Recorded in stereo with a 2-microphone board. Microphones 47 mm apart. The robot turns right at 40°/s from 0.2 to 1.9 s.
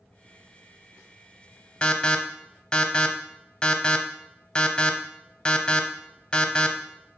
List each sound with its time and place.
1.8 s an alarm: 25° left (ahead or behind), 1.0 m; by 7.2 s 20° left (ahead or behind), 1.0 m